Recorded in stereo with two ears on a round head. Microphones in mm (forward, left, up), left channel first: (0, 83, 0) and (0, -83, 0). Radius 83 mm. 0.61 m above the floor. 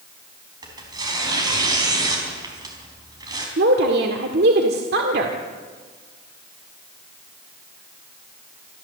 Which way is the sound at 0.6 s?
20° right (ahead or behind).